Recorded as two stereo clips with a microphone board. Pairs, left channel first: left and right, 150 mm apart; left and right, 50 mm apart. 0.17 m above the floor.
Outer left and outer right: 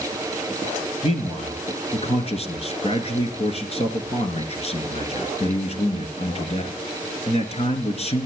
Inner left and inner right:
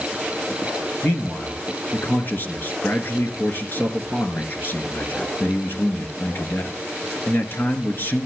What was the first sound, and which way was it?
A man speaking, 45° left (ahead or behind).